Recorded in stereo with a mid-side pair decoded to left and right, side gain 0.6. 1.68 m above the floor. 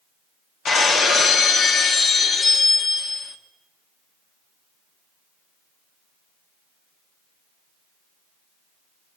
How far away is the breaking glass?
About 2.5 m.